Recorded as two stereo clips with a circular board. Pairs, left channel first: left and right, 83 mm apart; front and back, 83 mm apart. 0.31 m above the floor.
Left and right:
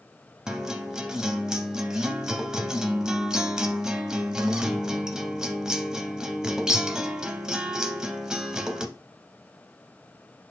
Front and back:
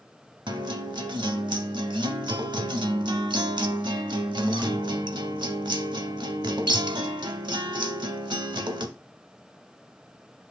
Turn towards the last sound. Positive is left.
turn(degrees=-170)